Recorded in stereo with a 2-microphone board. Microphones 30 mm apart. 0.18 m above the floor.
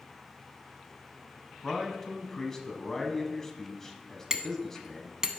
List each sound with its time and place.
1.6 s a man speaking: 15° left (ahead or behind), 1.0 m
4.3 s hammering: 15° right (ahead or behind), 0.6 m